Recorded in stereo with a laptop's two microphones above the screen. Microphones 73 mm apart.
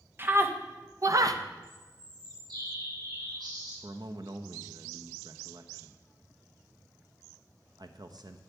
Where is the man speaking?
65° right (ahead or behind), 0.9 m.